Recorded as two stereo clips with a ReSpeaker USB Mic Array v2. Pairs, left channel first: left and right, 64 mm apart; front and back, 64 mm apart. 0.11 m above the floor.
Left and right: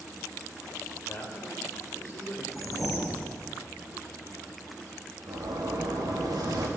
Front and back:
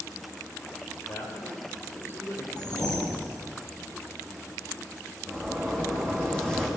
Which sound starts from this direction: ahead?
A whoosh, at 2.5 s.